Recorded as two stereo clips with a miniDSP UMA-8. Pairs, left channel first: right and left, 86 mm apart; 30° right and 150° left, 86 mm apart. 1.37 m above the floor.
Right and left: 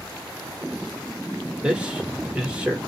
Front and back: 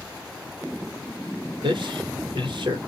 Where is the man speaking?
170° left, 1.2 m.